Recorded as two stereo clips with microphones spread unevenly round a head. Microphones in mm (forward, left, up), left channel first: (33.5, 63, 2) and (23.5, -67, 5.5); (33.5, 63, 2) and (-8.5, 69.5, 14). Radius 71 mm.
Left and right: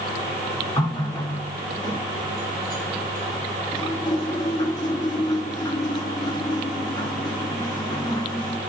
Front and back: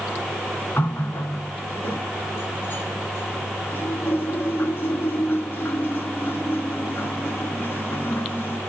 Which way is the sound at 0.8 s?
25° left.